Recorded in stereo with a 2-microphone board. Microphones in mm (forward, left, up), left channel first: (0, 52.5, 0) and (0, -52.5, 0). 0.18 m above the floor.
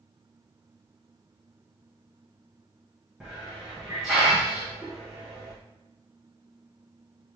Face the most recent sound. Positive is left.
turn(degrees=-5)  # may be behind; listen again after turning